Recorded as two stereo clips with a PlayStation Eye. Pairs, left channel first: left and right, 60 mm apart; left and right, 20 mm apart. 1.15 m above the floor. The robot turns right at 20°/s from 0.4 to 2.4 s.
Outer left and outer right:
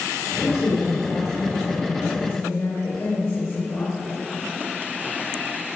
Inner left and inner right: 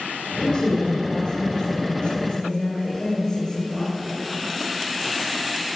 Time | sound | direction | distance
0.4 | a woman speaking | 80° left | 3.5 m